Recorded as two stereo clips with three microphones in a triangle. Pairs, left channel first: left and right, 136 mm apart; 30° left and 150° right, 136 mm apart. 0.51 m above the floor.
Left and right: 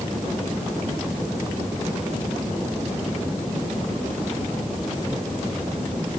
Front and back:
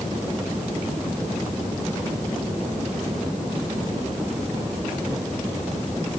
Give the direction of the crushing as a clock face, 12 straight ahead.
No crushing in this recording.